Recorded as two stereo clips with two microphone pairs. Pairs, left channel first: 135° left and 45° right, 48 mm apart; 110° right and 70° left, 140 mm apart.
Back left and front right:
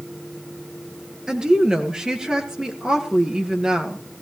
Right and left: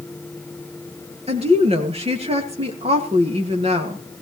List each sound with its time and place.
1.3 s a woman speaking: 30° left, 2.5 m